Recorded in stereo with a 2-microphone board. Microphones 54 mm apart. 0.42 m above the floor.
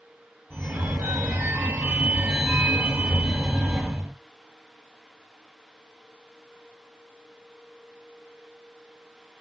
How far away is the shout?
No shout in this recording.